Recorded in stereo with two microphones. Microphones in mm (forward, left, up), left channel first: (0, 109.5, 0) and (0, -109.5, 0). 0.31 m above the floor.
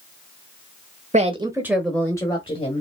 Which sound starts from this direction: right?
A woman speaking, at 1.1 s.